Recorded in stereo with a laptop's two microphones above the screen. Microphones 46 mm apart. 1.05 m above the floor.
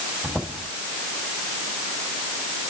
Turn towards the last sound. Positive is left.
turn(degrees=-15)  # may be behind; listen again after turning